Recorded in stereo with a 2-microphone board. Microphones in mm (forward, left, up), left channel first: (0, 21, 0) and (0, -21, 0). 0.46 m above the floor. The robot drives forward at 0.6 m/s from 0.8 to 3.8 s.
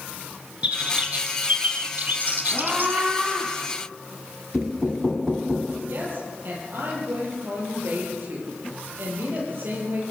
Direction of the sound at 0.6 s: 30° right (ahead or behind).